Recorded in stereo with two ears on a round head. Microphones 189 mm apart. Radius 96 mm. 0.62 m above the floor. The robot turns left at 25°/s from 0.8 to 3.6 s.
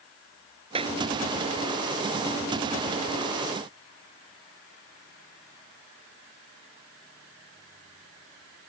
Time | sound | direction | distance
0.8 | a clap | 25° right (ahead or behind) | ?